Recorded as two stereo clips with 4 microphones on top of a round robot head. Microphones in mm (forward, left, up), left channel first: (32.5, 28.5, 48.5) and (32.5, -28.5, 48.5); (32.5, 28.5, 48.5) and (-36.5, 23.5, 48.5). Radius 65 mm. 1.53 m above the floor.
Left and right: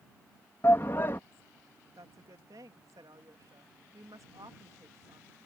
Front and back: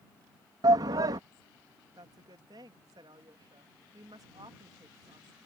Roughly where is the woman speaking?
Behind right.